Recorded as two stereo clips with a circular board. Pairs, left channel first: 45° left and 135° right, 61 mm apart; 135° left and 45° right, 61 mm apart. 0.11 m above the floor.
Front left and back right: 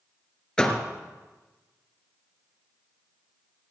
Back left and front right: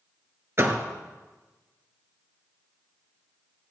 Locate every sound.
0.6 s a door slam: 25° right, 1.6 m